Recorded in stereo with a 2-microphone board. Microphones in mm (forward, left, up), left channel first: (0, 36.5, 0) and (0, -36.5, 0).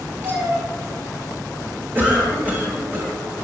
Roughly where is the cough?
Right.